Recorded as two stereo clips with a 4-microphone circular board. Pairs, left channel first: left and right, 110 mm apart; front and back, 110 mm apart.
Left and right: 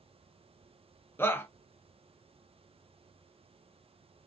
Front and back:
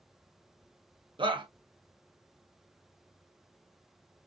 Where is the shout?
155° left, 0.6 m.